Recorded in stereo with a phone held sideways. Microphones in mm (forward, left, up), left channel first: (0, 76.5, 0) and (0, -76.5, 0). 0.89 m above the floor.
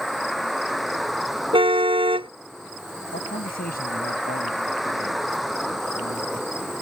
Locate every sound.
0.0 s a vehicle: centre (ahead or behind)
1.5 s a car horn: 35° right (ahead or behind)
3.1 s a man speaking: 75° left (ahead or behind)